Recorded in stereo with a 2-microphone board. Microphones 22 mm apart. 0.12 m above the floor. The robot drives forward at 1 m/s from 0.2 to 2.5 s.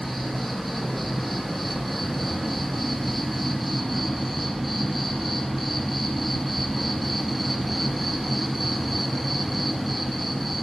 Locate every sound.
0.0 s an insect: centre (ahead or behind), 4.5 m